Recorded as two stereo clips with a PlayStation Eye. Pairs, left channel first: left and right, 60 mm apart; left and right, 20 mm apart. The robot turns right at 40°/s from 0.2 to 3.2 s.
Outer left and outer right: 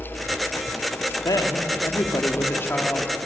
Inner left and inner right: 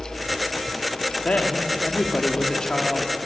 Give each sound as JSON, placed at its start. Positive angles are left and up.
{"t": 1.2, "sound": "a woman speaking", "azimuth_deg": 85, "distance_m": 2.0}